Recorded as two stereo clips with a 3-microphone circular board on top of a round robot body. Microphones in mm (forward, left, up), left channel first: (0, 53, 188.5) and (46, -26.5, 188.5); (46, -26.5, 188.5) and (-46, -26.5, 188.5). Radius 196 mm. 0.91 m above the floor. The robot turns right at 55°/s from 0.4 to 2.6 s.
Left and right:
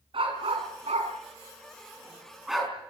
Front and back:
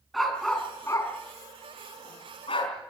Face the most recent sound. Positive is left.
turn(degrees=30)